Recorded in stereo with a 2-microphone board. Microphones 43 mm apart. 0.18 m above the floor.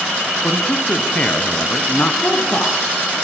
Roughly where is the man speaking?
Left.